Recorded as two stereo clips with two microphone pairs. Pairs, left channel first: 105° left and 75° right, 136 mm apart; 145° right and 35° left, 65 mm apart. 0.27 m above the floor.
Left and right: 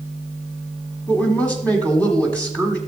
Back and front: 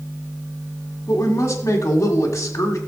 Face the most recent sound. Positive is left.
turn(degrees=180)